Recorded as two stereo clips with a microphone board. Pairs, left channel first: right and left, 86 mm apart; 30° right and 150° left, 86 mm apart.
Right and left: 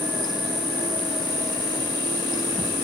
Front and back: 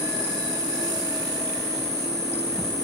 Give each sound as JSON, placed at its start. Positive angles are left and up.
{"t": 0.0, "sound": "an insect", "azimuth_deg": 110, "distance_m": 8.5}